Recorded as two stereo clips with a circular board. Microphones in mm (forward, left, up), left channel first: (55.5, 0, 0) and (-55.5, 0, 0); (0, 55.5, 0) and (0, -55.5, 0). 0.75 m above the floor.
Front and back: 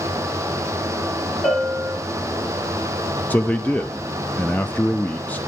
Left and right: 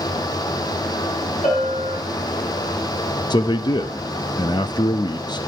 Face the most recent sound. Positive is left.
turn(degrees=70)